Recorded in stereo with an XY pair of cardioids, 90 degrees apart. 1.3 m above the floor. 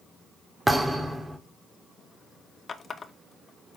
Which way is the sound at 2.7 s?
45° left.